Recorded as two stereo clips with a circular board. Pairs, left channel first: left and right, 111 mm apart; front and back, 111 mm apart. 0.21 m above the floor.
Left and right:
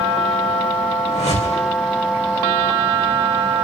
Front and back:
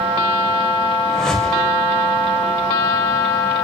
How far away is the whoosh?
About 5.5 m.